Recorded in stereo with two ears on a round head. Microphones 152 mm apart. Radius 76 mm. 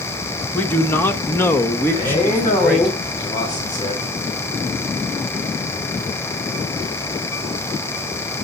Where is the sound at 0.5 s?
10° left (ahead or behind), 1.4 m.